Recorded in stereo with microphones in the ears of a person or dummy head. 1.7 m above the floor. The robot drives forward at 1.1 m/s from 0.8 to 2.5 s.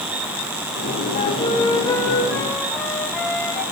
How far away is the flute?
About 0.5 m.